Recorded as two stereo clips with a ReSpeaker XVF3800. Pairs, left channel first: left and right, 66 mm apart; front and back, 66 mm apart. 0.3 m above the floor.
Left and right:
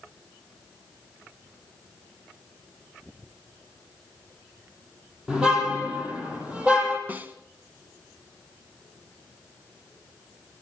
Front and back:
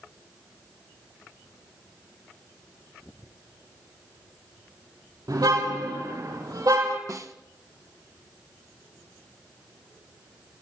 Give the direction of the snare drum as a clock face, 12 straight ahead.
5 o'clock.